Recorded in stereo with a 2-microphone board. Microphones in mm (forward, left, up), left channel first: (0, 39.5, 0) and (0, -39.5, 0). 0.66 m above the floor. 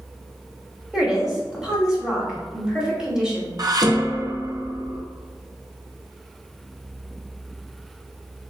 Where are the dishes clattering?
55° right (ahead or behind), 0.5 m.